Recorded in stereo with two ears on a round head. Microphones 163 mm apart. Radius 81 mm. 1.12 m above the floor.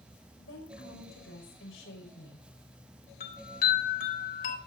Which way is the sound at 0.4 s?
80° left.